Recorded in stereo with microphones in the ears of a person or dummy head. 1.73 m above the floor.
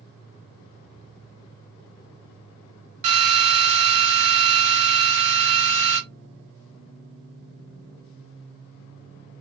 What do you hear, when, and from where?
3.0 s a drill: 40° right (ahead or behind), 1.4 m